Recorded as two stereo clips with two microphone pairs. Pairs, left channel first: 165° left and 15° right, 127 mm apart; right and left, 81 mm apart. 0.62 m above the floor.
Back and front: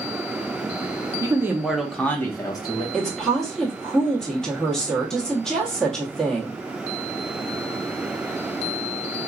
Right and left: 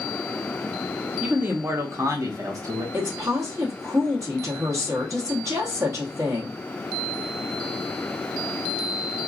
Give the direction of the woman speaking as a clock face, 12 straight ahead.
9 o'clock.